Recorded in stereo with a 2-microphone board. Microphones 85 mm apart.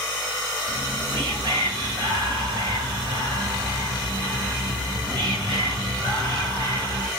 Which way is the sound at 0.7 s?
75° right (ahead or behind).